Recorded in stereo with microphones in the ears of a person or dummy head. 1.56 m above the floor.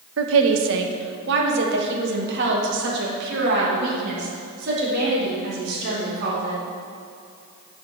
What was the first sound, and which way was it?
A woman speaking, 75° right (ahead or behind).